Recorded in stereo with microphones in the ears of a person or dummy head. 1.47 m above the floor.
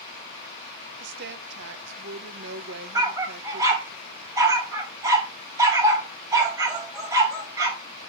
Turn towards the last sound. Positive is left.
turn(degrees=-20)  # may be behind; listen again after turning